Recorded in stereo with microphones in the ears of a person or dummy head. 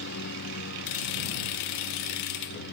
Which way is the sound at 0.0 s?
60° left (ahead or behind).